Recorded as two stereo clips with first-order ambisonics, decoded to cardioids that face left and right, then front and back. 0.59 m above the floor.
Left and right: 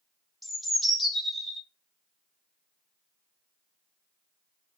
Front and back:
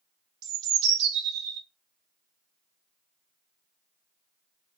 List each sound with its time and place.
0.4 s a bird: straight behind, 0.5 m